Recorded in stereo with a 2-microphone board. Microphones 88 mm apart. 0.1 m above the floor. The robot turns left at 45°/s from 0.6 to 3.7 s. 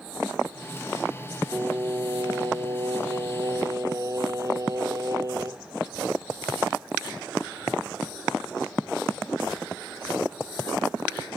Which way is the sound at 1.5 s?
30° right.